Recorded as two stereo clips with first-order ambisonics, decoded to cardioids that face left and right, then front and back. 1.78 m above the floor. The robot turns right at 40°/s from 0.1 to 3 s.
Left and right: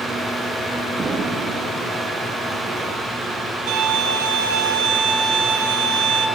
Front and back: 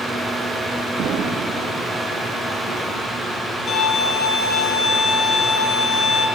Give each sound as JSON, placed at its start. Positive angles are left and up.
{"t": 1.0, "sound": "an explosion", "azimuth_deg": -150, "distance_m": 1.5}
{"t": 3.7, "sound": "a violin", "azimuth_deg": -70, "distance_m": 2.5}